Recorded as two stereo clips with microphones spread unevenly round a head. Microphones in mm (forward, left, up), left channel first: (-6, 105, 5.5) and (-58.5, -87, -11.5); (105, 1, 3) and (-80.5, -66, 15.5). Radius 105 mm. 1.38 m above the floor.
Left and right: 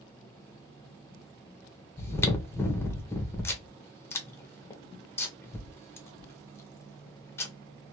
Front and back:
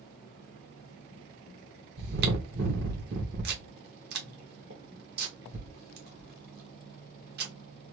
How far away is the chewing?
About 1.1 m.